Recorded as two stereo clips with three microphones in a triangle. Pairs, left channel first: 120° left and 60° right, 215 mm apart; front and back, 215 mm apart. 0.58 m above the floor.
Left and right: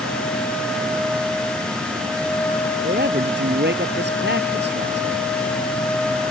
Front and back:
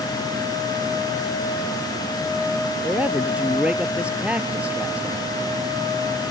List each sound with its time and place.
2.8 s a man speaking: 95° right